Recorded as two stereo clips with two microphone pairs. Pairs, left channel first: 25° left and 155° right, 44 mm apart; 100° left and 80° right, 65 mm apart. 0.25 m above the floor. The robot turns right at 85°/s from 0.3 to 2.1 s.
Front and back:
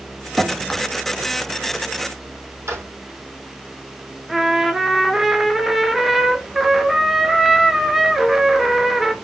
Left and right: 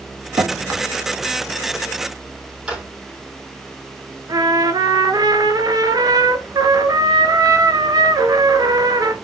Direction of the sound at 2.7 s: 150° right.